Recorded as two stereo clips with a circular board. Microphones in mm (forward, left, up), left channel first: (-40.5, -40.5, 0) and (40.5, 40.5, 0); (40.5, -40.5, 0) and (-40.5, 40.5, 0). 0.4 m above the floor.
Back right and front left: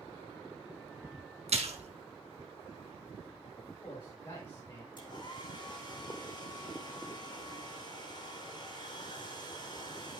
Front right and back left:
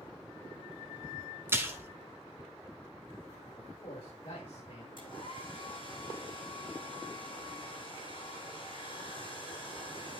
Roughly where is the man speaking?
Right.